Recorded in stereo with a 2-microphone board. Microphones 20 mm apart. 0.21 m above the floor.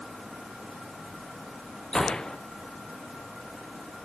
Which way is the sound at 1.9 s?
40° left (ahead or behind).